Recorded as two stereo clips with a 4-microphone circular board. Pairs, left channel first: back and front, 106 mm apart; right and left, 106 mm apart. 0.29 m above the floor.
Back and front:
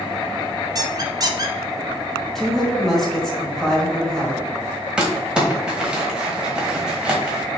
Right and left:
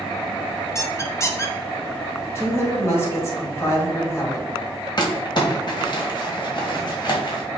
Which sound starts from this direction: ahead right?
A squeak, at 0.8 s.